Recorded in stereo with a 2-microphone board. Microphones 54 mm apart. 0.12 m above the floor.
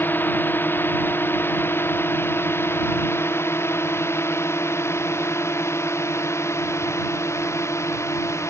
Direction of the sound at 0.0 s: 40° left (ahead or behind).